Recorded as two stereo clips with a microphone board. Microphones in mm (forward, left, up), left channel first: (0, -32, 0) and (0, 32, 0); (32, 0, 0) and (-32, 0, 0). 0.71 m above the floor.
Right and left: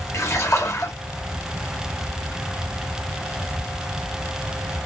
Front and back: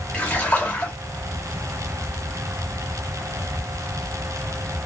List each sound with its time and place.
0.1 s a splash: 60° right, 1.4 m